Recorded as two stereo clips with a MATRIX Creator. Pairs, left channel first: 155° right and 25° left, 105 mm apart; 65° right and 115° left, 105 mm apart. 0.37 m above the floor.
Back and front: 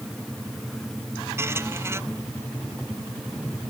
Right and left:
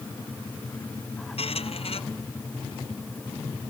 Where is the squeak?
45° right.